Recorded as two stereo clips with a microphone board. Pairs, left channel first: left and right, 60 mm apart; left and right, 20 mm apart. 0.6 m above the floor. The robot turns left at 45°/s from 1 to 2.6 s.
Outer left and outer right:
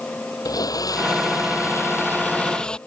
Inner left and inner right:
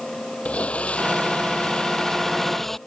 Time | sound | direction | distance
0.5 | a blender | 90° left | ?